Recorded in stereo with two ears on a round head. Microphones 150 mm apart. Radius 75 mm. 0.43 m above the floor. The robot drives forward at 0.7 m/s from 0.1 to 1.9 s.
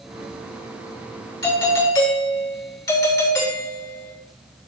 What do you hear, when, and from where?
1.4 s a doorbell: 25° left (ahead or behind), 8 m